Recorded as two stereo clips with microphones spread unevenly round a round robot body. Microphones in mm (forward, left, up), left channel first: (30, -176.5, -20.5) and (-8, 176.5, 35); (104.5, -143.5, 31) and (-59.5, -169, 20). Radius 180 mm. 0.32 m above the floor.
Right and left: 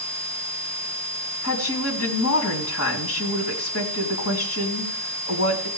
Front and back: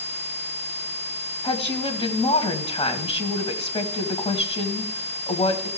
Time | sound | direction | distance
1.4 | a woman speaking | 45° right | 2.5 m